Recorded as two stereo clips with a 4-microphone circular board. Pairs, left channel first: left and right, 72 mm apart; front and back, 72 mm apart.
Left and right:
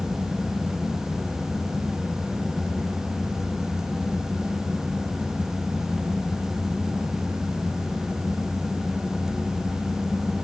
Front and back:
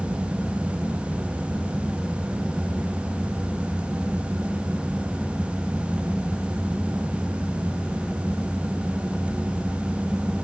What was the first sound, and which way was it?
Only background noise.